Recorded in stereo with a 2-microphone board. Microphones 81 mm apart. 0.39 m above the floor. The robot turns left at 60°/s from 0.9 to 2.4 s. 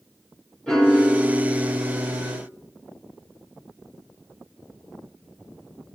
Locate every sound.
0.7 s a piano: 5° left, 0.9 m; by 2.4 s 85° right, 0.9 m